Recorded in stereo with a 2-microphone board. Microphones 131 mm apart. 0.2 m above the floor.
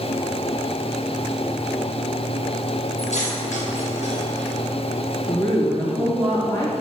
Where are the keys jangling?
65° left (ahead or behind), 3 m.